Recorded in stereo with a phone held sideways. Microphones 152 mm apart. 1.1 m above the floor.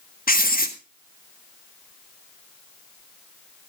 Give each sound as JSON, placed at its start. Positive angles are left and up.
{"t": 0.3, "sound": "writing", "side_deg": 70, "distance_m": 1.6}